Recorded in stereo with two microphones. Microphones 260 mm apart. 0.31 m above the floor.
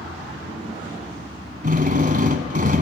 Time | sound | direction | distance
1.6 | a drill | 35° right (ahead or behind) | 1.5 m